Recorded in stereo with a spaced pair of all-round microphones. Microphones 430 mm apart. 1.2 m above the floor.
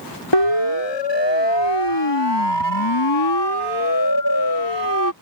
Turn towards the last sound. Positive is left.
turn(degrees=45)  # may be behind; listen again after turning